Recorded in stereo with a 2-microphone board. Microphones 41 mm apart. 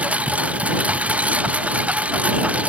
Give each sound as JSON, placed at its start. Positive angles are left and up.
{"t": 0.0, "sound": "a lawn mower", "side_deg": -35}